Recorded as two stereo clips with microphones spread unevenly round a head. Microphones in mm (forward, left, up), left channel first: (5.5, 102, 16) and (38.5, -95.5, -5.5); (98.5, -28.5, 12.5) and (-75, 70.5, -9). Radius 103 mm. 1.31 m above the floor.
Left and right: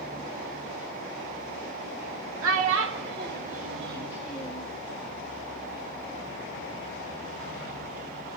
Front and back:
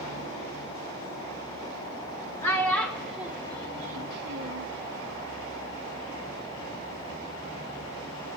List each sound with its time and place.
2.4 s a child speaking: 105° right, 1.8 m; by 4.7 s 170° left, 1.1 m